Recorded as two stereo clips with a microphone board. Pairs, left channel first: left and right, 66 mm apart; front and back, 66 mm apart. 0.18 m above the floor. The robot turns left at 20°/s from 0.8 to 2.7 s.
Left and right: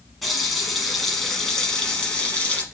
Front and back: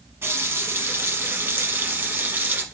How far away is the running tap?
About 1.1 m.